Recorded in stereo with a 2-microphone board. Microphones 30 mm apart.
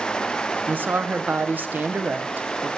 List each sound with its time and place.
0.7 s a woman speaking: 75° right (ahead or behind), 0.6 m